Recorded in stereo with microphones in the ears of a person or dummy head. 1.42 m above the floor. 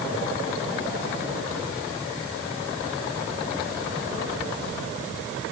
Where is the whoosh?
I don't hear a whoosh.